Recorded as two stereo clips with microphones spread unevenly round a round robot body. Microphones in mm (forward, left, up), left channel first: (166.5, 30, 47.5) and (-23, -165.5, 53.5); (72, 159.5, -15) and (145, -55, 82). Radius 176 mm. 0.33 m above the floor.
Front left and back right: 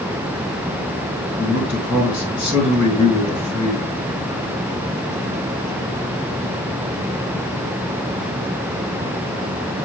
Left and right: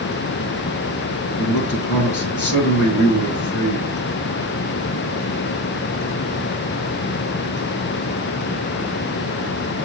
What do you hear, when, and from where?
1.4 s a man speaking: 140° left, 4 m